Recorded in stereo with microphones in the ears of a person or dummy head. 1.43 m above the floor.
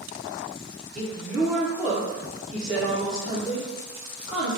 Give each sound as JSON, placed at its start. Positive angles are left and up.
{"t": 0.9, "sound": "a woman speaking", "side_deg": -5, "distance_m": 1.1}